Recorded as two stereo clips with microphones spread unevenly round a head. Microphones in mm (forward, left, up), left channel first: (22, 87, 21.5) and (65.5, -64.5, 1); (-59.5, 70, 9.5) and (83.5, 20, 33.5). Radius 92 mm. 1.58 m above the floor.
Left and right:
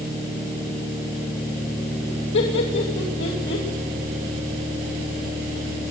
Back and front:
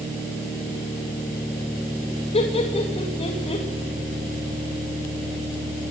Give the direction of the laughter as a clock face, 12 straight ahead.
8 o'clock.